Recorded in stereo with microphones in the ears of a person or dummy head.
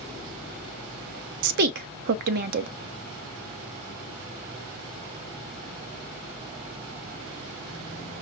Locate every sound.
1.4 s a woman speaking: 55° right (ahead or behind), 0.7 m